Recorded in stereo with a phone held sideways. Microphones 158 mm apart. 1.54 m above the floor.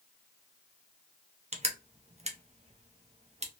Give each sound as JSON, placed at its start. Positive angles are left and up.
{"t": 1.5, "sound": "crushing", "side_deg": -40, "distance_m": 0.8}